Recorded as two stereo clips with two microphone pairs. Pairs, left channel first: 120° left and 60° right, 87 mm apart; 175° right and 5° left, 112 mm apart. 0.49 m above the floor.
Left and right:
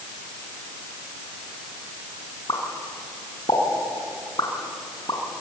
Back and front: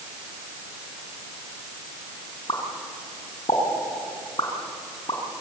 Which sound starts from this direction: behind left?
A pop, at 2.5 s.